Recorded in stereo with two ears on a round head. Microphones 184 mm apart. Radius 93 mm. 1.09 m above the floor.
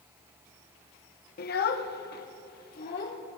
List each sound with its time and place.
1.4 s a child speaking: 50° left (ahead or behind), 0.6 m; by 3.2 s 45° left (ahead or behind), 1.6 m